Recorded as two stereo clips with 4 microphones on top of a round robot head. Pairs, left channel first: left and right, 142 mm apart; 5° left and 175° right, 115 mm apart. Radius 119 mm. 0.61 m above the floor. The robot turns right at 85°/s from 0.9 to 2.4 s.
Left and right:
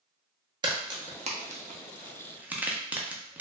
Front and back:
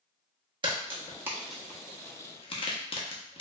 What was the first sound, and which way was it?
A crack, 140° right.